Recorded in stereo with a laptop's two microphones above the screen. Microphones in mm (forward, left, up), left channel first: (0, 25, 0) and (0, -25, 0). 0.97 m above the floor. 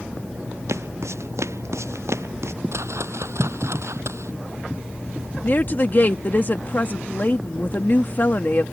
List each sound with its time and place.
0.7 s footsteps: 80° right; by 2.5 s 75° right (ahead or behind)
2.7 s a whoosh: 75° right (ahead or behind)
5.4 s a woman speaking: 45° left (ahead or behind)